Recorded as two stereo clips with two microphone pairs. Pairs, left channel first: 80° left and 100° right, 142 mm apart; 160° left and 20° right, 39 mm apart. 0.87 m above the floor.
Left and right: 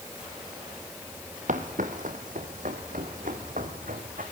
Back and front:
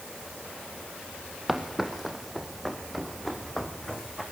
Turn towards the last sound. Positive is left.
turn(degrees=-120)